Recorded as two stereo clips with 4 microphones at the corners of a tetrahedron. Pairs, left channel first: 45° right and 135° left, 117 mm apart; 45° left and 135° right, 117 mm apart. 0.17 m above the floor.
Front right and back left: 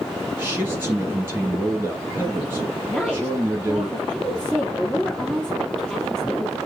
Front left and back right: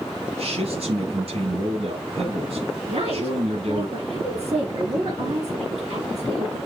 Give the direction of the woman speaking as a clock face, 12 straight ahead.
4 o'clock.